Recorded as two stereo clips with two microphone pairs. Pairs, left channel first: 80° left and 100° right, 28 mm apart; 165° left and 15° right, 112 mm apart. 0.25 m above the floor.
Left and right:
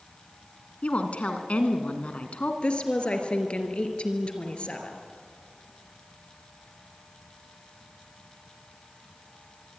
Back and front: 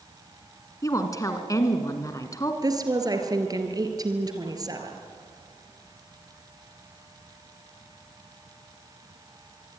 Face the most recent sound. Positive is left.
turn(degrees=35)